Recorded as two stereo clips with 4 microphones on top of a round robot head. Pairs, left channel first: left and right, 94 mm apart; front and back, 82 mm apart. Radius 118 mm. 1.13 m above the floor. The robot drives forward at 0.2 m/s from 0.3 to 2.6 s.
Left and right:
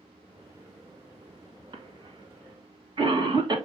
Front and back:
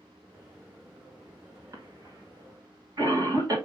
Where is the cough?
130° right, 1.6 m; by 3.6 s 135° right, 1.7 m.